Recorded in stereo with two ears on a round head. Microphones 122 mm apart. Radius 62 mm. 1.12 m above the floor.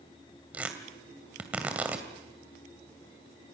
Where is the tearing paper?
10° right (ahead or behind), 2.5 m.